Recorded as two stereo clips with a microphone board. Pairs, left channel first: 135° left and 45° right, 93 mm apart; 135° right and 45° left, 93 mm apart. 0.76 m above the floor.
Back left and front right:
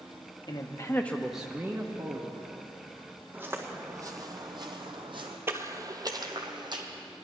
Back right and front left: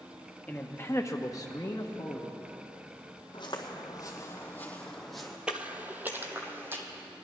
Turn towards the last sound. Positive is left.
turn(degrees=-20)